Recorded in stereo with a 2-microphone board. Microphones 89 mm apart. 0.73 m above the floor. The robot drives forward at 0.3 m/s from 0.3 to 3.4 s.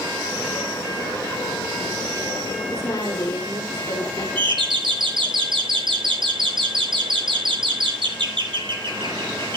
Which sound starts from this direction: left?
A woman speaking, at 2.7 s.